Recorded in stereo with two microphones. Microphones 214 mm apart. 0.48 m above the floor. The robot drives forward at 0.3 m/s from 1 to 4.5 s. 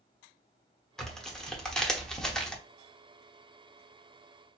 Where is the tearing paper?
Centre (ahead or behind), 1.1 m; by 2.6 s 5° left (ahead or behind), 0.8 m.